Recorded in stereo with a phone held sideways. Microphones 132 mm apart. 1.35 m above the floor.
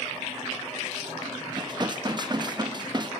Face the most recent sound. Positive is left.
turn(degrees=-35)  # may be behind; listen again after turning